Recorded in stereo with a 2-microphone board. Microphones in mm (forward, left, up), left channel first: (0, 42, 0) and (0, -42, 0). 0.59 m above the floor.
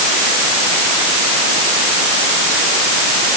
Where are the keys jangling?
No keys jangling in this recording.